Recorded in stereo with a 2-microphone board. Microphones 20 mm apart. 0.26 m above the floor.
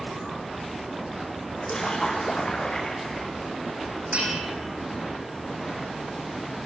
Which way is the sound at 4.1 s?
85° right.